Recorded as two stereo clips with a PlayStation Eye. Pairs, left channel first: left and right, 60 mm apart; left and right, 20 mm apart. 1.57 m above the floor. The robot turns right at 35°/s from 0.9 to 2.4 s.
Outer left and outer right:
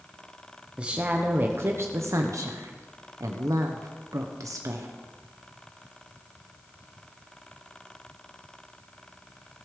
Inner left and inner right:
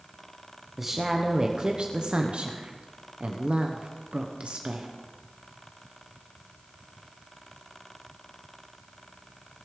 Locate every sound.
0.8 s a woman speaking: 160° right, 0.9 m; by 4.9 s 105° right, 0.9 m